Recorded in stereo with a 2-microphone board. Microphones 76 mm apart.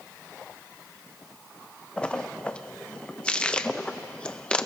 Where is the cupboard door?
I don't hear a cupboard door.